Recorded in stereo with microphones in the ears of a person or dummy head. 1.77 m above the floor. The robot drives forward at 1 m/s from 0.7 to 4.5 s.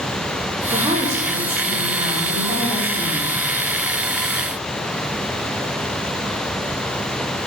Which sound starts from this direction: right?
A woman speaking, at 0.7 s.